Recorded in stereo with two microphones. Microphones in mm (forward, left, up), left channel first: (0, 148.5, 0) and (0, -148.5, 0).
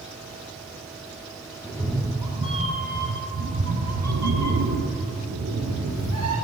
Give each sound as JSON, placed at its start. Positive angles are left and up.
{"t": 1.6, "sound": "a cat meowing", "side_deg": 0, "distance_m": 1.7}